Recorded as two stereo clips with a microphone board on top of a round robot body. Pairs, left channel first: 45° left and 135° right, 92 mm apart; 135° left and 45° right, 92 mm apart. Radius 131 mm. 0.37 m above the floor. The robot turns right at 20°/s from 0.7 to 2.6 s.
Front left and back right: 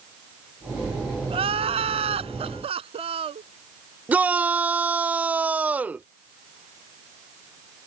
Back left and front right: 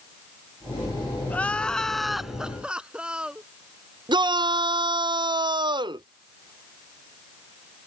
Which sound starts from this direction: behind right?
Crying, at 1.3 s.